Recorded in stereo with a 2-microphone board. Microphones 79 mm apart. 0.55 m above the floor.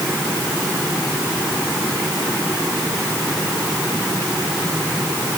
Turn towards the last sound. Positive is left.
No sound to turn to.